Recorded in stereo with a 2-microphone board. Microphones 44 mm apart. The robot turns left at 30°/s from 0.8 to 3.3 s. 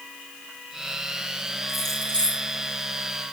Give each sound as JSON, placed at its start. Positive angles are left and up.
{"t": 1.7, "sound": "keys jangling", "side_deg": 0, "distance_m": 7.0}